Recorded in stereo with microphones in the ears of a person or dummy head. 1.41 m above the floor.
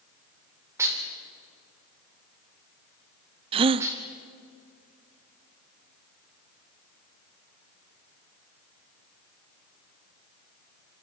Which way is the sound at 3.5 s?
30° right (ahead or behind).